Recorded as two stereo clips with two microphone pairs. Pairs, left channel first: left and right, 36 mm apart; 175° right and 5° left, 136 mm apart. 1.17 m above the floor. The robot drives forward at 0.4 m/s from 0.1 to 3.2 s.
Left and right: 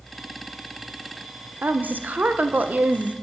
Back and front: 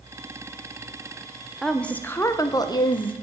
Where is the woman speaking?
85° right, 0.9 m; by 3.1 s 130° right, 1.0 m.